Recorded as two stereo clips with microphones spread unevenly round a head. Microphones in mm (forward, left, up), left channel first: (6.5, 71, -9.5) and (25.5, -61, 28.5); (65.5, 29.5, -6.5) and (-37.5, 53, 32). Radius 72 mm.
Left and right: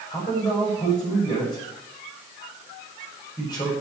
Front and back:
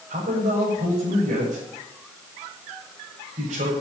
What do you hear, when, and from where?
0.1 s a man speaking: 165° left, 7 m